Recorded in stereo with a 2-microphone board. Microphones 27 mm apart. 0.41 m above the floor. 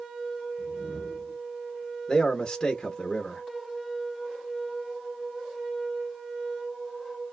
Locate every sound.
0.6 s a whoosh: 70° left (ahead or behind), 0.5 m
2.1 s a man speaking: 20° left (ahead or behind), 0.8 m